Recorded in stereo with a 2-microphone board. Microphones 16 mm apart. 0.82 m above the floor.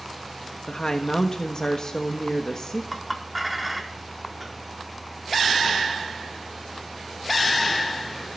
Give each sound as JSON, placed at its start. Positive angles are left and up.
{"t": 0.7, "sound": "a woman speaking", "side_deg": 40, "distance_m": 1.2}
{"t": 2.9, "sound": "a clink", "side_deg": 0, "distance_m": 1.4}